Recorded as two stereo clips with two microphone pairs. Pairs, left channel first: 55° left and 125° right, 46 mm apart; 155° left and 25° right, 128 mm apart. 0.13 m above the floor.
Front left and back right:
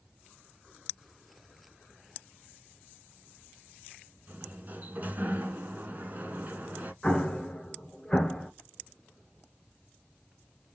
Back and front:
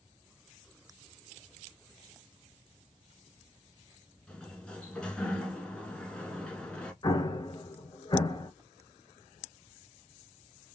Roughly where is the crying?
I don't hear crying.